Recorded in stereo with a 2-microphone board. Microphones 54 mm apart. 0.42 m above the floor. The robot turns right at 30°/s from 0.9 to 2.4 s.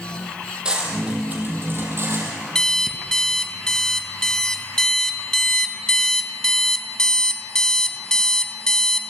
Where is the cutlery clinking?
15° right (ahead or behind), 7 m; by 2.4 s 60° right (ahead or behind), 7 m.